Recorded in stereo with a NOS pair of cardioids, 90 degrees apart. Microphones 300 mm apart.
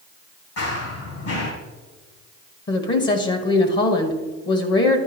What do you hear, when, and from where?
0.6 s running footsteps: 55° left, 3.5 m
2.7 s a woman speaking: 40° left, 1.3 m